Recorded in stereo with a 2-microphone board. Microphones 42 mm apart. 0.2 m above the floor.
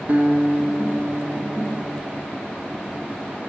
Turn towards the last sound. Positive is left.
turn(degrees=-45)  # may be behind; listen again after turning